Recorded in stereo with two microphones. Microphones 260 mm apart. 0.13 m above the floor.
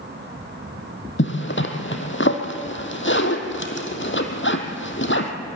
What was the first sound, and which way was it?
A zipper, 45° left (ahead or behind).